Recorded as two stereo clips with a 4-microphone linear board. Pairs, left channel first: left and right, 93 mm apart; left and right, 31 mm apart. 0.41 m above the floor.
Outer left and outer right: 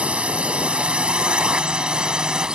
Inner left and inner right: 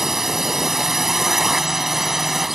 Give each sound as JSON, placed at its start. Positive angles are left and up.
{"t": 0.0, "sound": "a drone", "side_deg": -15}